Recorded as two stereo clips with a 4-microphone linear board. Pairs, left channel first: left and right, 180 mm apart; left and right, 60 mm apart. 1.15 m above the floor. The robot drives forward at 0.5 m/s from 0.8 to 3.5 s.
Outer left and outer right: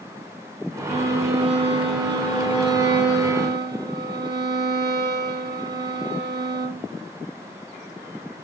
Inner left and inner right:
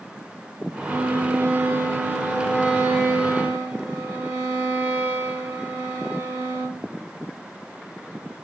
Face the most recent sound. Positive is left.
turn(degrees=-20)  # may be behind; listen again after turning